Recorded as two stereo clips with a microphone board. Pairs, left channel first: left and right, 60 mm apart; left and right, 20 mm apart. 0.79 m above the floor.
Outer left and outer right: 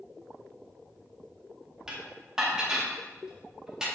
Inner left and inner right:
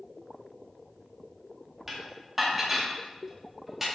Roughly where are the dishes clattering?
Centre.